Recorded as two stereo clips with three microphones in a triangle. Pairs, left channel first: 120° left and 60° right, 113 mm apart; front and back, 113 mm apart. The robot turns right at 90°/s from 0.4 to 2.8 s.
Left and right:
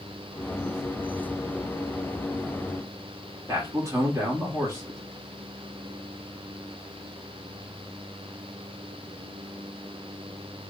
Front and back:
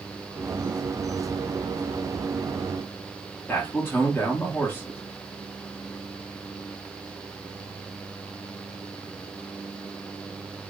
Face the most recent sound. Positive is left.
turn(degrees=-45)